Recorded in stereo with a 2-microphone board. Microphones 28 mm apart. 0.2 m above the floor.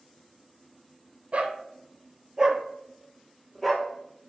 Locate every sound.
1.3 s a dog barking: 50° right (ahead or behind), 1.3 m; by 3.9 s 15° left (ahead or behind), 1.2 m